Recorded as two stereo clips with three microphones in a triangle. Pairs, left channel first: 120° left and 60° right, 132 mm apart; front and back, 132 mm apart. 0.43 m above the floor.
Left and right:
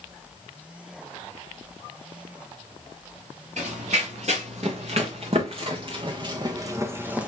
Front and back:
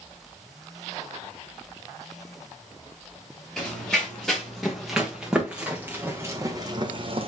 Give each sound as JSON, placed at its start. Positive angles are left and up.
{"t": 3.6, "sound": "running footsteps", "azimuth_deg": -85, "distance_m": 2.5}